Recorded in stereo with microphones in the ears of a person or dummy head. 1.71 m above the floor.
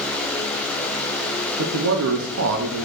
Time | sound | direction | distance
1.6 | a man speaking | 70° right (ahead or behind) | 0.7 m